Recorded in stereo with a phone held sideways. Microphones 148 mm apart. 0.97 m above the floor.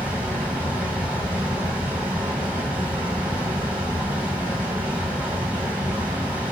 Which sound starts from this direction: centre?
A fan, at 0.0 s.